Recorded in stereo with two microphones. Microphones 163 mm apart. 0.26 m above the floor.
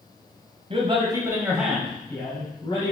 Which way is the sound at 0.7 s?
35° right (ahead or behind).